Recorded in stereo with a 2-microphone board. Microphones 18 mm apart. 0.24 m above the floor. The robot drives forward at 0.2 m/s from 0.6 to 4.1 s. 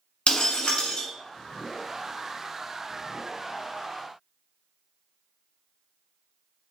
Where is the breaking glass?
60° left (ahead or behind), 1.0 m; by 1.1 s 55° left (ahead or behind), 1.1 m.